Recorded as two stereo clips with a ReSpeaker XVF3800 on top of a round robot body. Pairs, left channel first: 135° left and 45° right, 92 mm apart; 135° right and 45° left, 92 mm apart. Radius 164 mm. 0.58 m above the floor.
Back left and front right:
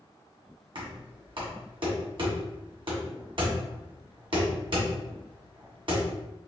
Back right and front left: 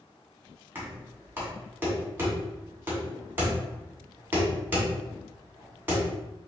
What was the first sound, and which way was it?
Knocking, 25° right.